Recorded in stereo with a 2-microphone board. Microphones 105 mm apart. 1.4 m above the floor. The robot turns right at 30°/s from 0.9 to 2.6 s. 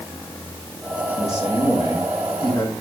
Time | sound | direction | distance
1.2 | a man speaking | 95° left | 7.5 m